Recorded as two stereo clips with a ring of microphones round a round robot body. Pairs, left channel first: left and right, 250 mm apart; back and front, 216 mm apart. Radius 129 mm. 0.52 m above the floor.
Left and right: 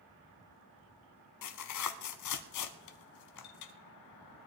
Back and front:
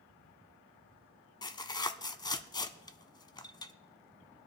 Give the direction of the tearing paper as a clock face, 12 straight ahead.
8 o'clock.